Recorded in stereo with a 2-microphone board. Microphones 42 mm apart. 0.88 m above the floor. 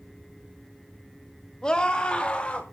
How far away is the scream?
About 1.6 m.